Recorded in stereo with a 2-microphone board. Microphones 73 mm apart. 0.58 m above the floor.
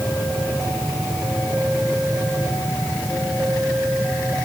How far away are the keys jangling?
No keys jangling in this recording.